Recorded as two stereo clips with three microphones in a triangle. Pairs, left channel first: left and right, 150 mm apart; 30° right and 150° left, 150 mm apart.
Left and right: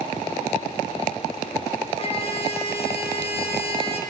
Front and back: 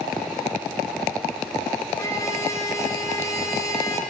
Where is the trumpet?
40° left, 5.5 m.